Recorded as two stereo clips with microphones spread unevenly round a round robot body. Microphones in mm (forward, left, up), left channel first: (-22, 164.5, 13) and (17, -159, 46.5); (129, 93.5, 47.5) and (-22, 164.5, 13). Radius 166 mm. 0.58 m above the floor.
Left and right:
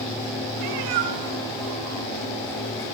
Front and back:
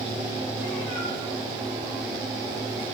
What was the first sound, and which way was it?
A cat meowing, 100° right.